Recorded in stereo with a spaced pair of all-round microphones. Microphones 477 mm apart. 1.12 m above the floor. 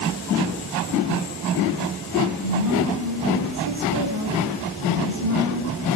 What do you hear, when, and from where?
2.4 s a woman speaking: 50° left (ahead or behind), 9.5 m